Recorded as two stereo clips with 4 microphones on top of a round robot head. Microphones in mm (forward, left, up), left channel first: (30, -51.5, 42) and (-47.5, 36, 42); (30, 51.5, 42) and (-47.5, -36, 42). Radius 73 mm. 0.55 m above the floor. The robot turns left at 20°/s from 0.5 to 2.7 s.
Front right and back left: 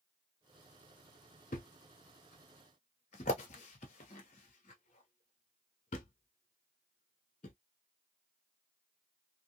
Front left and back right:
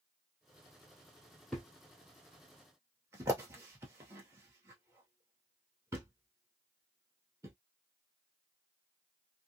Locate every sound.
1.5 s a thud: 40° right, 0.7 m; by 7.5 s 65° right, 0.7 m